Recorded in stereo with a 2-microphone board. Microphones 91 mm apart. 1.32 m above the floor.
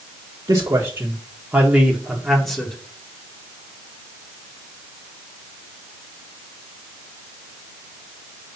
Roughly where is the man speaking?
Right.